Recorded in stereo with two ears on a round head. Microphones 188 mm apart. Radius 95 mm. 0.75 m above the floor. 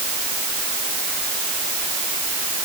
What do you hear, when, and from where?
Only background noise.